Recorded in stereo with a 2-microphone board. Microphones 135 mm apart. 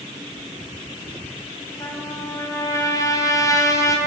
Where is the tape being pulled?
No tape being pulled in this recording.